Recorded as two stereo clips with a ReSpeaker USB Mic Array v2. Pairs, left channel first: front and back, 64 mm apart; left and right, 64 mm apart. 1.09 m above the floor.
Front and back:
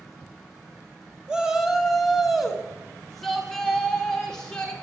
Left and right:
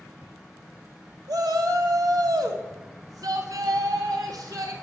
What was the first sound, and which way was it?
A shout, 100° right.